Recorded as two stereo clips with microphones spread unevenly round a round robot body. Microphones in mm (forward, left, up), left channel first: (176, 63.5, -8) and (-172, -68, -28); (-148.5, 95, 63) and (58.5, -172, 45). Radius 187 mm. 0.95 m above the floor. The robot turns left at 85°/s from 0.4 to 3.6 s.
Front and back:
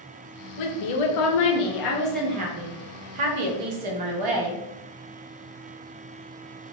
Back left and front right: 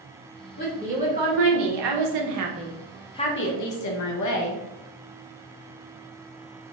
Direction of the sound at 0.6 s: 65° left.